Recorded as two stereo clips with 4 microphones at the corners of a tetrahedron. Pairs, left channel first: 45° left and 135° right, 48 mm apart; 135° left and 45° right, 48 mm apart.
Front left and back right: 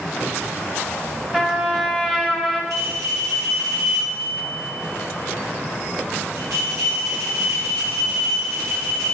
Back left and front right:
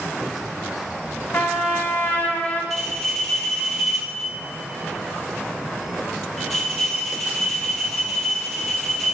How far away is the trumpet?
About 1.8 m.